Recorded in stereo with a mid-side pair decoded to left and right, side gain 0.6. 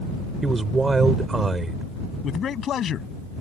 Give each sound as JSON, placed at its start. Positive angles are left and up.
{"t": 0.4, "sound": "a man speaking", "azimuth_deg": -20}
{"t": 2.2, "sound": "a man speaking", "azimuth_deg": 45}